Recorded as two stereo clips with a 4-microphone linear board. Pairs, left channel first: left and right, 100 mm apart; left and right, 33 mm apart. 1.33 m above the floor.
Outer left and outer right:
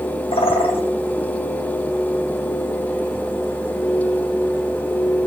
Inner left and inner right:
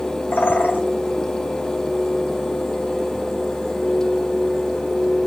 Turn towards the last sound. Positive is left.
turn(degrees=70)  # may be behind; listen again after turning